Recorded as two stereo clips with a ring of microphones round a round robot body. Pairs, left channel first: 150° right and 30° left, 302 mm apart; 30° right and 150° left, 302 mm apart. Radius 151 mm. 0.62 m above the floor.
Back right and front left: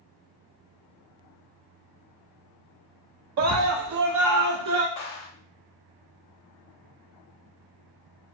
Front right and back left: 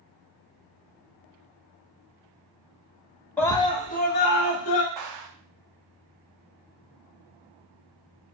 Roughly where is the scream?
Ahead left.